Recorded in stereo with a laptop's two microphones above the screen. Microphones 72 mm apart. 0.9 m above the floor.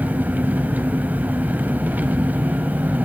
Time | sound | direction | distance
0.0 | an engine running | 25° right (ahead or behind) | 1.3 m